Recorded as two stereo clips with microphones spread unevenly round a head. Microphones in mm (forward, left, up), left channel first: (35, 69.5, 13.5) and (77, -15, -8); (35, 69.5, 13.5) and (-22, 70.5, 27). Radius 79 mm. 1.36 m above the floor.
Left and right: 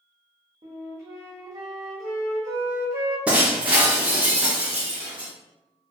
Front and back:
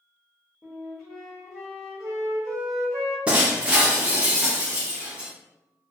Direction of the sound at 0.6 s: 120° right.